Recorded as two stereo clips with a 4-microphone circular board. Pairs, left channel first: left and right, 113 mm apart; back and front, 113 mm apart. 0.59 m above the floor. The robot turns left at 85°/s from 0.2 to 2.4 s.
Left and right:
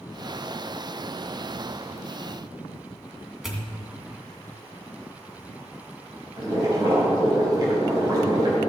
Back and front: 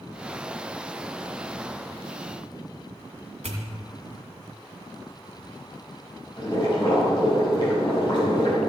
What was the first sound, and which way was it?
A pop, 5° right.